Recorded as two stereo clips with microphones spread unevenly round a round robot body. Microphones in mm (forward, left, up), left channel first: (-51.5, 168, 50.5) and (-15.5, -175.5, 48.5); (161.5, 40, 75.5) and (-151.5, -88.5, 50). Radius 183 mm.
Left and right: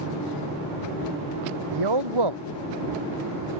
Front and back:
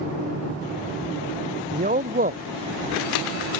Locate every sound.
1.7 s a man speaking: 90° right